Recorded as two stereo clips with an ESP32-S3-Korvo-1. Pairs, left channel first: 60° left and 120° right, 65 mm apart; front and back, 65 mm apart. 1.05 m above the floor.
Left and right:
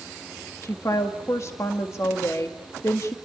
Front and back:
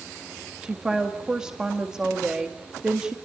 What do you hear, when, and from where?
0.6 s a woman speaking: 100° left, 1.7 m